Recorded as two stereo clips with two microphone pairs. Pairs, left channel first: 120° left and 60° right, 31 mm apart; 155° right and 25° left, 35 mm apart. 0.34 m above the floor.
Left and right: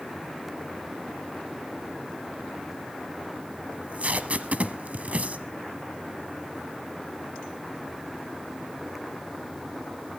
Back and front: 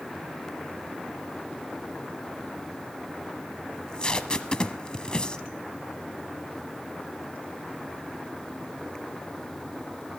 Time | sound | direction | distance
3.7 | tape being pulled | 95° right | 1.1 m